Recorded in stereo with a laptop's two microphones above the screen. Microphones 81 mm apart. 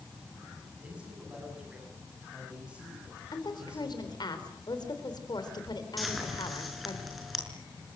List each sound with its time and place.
0.8 s a man speaking: 15° right (ahead or behind), 8 m
3.3 s a woman speaking: 65° left (ahead or behind), 4 m
6.0 s frying: centre (ahead or behind), 5.5 m